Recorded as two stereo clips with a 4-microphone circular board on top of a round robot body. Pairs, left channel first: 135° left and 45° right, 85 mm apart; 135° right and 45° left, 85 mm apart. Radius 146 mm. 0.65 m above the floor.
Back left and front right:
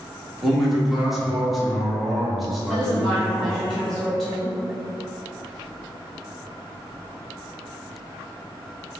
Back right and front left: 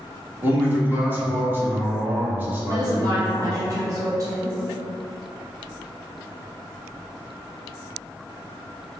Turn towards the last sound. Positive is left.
turn(degrees=50)